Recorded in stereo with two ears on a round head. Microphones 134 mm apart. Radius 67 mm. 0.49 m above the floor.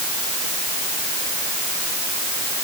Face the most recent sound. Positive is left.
No sound to turn to.